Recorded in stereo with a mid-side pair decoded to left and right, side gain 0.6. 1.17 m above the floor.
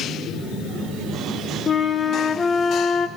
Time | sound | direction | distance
1.7 | a flute | 30° left | 0.7 m